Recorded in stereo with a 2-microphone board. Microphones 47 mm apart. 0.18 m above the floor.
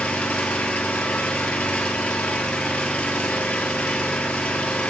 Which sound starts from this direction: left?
An engine running, at 0.0 s.